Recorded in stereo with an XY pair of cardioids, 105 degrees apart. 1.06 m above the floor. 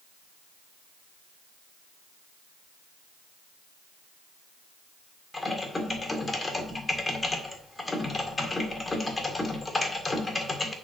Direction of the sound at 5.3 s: 20° left.